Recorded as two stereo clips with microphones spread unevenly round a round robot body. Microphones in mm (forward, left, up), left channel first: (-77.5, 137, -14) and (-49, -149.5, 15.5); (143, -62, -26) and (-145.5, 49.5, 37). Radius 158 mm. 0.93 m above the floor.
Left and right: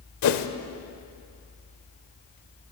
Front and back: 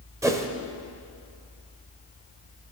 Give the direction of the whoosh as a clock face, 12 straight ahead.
9 o'clock.